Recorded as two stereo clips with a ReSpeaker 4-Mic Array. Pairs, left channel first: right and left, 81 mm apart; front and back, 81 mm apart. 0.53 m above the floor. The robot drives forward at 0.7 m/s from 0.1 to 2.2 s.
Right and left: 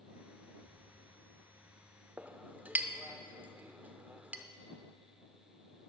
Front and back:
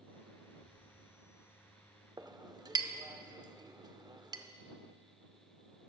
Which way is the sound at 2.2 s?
155° left.